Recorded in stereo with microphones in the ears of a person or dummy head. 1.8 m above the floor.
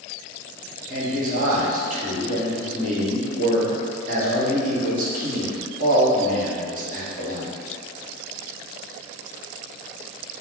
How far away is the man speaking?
About 1.3 m.